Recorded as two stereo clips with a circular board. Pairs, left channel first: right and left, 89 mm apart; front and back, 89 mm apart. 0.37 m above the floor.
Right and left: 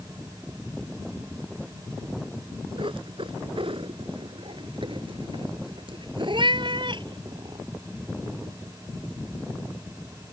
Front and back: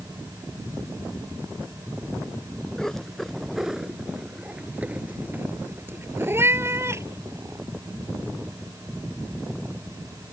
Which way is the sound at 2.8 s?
85° left.